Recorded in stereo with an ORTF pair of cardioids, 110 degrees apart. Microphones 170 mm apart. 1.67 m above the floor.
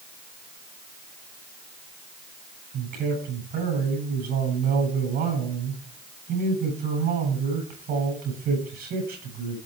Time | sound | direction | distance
2.7 | a man speaking | 60° right | 8.5 m